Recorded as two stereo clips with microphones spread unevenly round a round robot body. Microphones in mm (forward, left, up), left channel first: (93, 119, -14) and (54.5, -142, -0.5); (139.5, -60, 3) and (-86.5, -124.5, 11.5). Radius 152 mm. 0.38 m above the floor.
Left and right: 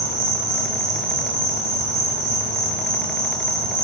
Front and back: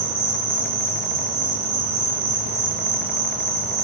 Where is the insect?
170° left, 3 m.